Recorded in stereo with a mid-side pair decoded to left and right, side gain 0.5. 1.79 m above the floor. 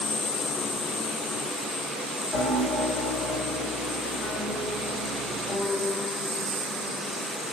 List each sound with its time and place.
2.3 s a piano: 55° left, 2 m